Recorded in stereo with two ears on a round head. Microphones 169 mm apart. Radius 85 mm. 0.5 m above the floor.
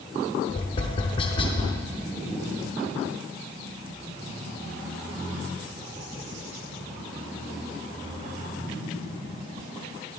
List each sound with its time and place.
0.5 s tapping: 30° left (ahead or behind), 0.8 m